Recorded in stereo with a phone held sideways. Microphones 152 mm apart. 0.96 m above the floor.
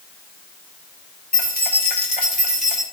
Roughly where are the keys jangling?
Left.